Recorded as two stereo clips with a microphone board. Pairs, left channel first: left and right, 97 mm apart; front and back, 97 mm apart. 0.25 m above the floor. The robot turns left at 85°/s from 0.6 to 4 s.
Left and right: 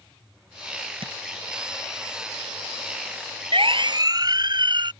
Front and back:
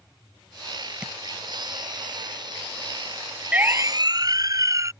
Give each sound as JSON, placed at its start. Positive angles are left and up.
{"t": 1.0, "sound": "tapping", "azimuth_deg": -100}
{"t": 3.5, "sound": "a siren", "azimuth_deg": -105}